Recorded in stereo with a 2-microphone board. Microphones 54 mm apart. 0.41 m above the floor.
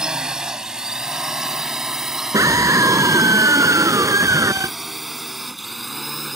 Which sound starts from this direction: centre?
A drone, at 0.0 s.